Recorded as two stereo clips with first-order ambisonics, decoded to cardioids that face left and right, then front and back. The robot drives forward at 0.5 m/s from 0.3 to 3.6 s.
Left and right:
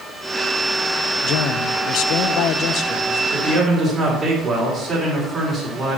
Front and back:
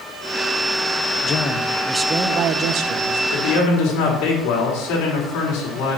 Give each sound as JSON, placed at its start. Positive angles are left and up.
{"t": 1.2, "sound": "a man speaking", "azimuth_deg": 55, "distance_m": 0.6}
{"t": 3.3, "sound": "a man speaking", "azimuth_deg": -15, "distance_m": 4.0}